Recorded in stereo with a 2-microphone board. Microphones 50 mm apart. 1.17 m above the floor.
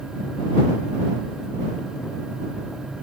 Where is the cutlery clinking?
No cutlery clinking in this recording.